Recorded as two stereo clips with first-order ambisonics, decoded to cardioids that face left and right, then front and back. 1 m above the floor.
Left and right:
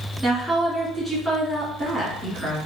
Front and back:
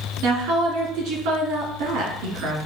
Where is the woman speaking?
175° right, 1.6 m.